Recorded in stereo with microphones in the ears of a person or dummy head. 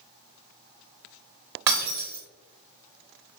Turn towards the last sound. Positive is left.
turn(degrees=-20)  # may be behind; listen again after turning